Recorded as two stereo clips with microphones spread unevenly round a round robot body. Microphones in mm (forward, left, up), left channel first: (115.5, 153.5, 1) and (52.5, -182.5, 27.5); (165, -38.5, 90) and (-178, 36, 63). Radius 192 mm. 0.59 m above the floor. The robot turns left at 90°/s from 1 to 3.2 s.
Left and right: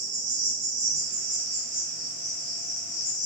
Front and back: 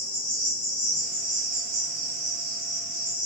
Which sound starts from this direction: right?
An insect, at 0.0 s.